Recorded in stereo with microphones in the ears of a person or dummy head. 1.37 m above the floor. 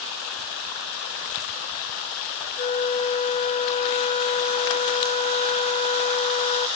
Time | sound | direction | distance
2.6 | a flute | 35° left (ahead or behind) | 1.0 m